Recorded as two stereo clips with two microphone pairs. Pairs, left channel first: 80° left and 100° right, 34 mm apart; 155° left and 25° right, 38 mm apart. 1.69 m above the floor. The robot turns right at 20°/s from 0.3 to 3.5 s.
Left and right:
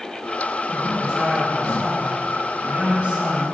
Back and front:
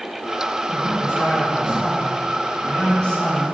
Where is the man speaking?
170° left, 3 m; by 3.4 s 135° right, 3 m.